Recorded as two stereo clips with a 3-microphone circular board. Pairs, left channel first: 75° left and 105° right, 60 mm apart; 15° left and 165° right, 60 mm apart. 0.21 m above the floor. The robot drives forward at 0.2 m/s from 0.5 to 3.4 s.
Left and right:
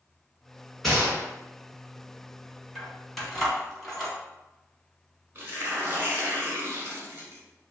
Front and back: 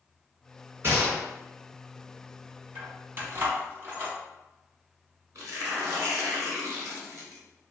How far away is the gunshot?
About 1.3 m.